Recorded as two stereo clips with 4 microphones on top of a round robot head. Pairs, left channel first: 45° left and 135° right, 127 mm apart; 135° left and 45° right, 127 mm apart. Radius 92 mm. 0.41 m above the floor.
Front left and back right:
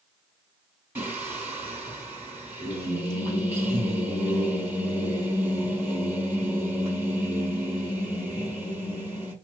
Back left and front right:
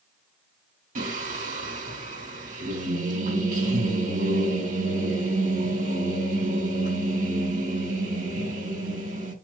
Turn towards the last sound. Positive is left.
turn(degrees=-60)